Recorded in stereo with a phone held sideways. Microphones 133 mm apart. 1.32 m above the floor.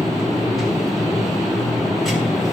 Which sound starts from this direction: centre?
A machine running, at 0.0 s.